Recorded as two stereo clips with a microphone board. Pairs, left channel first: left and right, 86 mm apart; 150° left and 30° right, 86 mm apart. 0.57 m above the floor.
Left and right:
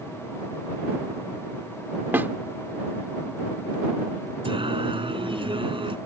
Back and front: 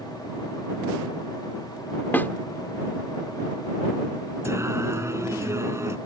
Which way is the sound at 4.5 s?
85° right.